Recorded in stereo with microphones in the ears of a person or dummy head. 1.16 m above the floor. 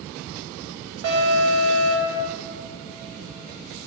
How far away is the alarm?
About 2.5 m.